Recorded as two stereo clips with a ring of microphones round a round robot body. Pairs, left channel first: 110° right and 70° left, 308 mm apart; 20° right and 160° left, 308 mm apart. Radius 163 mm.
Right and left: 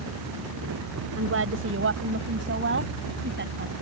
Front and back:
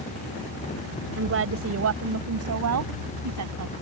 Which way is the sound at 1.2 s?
110° left.